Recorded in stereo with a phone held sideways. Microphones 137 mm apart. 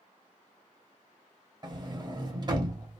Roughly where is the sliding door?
Right.